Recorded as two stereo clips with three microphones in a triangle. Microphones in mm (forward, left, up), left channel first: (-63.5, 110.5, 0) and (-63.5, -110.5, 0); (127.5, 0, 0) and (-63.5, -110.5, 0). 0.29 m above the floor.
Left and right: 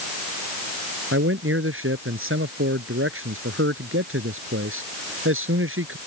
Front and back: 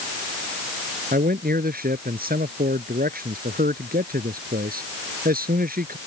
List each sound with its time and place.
1.1 s a man speaking: 105° right